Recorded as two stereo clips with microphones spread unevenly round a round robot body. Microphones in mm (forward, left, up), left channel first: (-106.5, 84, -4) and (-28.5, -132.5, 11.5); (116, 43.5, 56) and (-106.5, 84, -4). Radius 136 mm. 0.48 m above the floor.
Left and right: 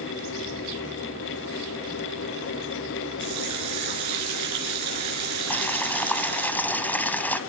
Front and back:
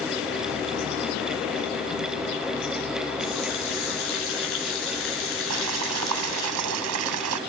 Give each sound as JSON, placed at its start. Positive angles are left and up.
{"t": 3.2, "sound": "a running tap", "azimuth_deg": -55, "distance_m": 5.5}
{"t": 5.5, "sound": "boiling", "azimuth_deg": -165, "distance_m": 1.4}